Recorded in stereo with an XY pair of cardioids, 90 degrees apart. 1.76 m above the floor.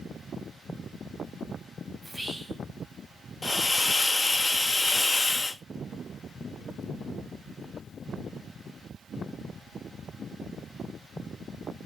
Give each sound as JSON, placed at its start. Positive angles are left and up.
{"t": 2.0, "sound": "whispering", "azimuth_deg": -20, "distance_m": 1.2}
{"t": 3.4, "sound": "a hiss", "azimuth_deg": 25, "distance_m": 0.7}